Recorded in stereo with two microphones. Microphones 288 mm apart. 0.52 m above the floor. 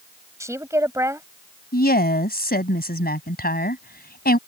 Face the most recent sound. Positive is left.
turn(degrees=35)  # may be behind; listen again after turning